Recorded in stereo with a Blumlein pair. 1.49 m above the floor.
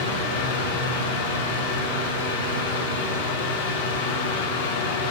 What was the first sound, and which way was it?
A fan, 60° left.